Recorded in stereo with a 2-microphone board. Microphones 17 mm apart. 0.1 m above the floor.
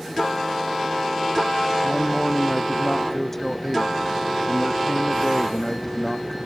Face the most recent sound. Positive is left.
turn(degrees=15)  # may be behind; listen again after turning